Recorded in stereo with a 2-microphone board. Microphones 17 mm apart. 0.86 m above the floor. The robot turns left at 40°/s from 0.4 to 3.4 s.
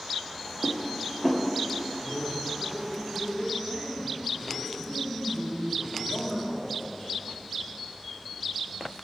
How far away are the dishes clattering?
About 0.8 m.